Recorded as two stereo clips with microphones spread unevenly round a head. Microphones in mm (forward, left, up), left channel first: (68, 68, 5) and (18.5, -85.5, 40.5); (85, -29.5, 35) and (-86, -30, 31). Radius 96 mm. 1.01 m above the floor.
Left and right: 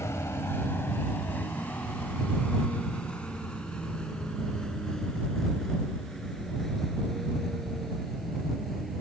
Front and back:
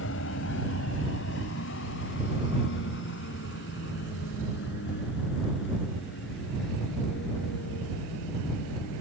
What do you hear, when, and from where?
0.0 s a vehicle: 5° right; by 9.0 s 20° right